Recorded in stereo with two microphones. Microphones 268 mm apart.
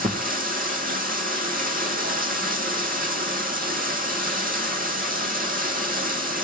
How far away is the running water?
About 1.3 m.